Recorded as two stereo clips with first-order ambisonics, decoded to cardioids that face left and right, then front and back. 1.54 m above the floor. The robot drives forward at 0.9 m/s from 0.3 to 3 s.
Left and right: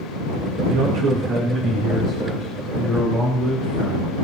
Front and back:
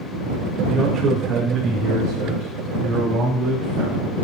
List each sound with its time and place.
0.7 s a man speaking: 105° right, 2.5 m; by 4.1 s 140° right, 3.5 m